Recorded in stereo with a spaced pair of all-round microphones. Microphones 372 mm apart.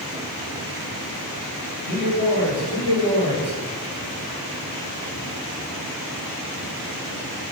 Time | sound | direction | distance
1.9 | a man speaking | 70° right (ahead or behind) | 3 m